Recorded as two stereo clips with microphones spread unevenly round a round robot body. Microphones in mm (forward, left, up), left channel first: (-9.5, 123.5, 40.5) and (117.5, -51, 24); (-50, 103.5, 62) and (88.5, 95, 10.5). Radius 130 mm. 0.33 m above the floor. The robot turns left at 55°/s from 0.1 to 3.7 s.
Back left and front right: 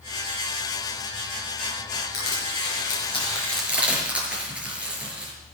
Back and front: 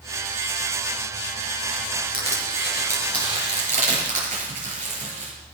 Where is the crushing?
115° left, 5 m; by 5.3 s 30° left, 5 m.